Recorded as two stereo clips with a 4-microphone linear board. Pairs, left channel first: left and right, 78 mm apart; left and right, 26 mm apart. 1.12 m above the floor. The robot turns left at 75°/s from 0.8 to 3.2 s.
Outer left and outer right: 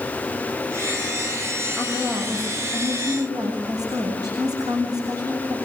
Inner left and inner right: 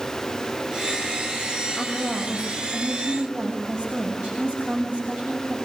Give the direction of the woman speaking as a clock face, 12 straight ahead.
12 o'clock.